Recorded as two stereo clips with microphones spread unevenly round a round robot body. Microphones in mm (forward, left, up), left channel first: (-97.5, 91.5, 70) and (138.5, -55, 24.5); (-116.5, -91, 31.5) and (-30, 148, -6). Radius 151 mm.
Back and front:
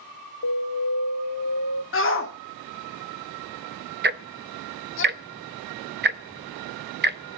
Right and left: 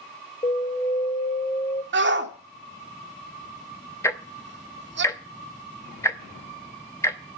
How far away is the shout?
About 2.5 m.